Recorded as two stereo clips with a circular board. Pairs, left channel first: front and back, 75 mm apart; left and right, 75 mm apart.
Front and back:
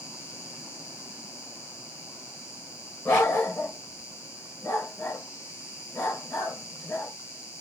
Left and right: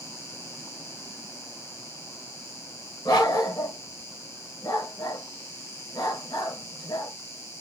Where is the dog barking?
55° left, 3 m.